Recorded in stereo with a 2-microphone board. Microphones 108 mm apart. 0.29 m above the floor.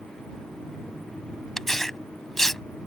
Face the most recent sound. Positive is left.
turn(degrees=5)  # may be behind; listen again after turning